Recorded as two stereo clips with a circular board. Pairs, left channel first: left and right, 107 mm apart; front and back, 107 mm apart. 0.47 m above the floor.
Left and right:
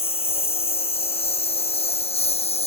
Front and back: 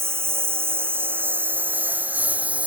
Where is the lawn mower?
115° left; by 2.7 s 105° left.